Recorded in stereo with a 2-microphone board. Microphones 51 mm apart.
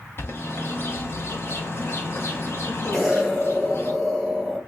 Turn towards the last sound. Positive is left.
turn(degrees=-5)  # may be behind; listen again after turning